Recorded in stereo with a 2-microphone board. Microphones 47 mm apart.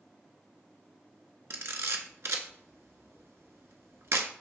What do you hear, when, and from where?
1.5 s a camera shutter: 70° right (ahead or behind), 0.6 m